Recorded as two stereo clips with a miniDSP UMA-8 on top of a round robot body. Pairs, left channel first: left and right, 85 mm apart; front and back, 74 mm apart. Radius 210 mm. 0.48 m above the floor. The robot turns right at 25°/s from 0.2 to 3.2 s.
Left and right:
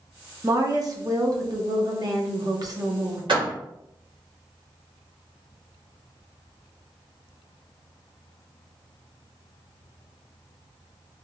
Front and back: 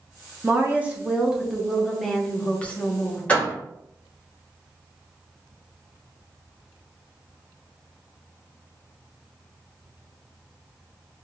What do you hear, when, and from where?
0.4 s a woman speaking: 125° right, 1.1 m; by 3.2 s 55° right, 1.1 m
3.3 s a door slam: 70° right, 1.9 m